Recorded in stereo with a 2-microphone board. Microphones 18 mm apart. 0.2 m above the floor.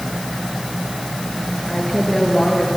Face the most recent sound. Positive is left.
turn(degrees=35)  # may be behind; listen again after turning